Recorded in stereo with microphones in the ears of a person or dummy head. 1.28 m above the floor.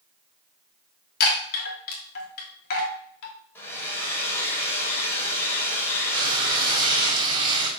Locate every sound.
1.2 s a chime: 55° left (ahead or behind), 3 m
3.5 s a hair dryer: 15° left (ahead or behind), 3.5 m
6.1 s frying: 25° right (ahead or behind), 4.5 m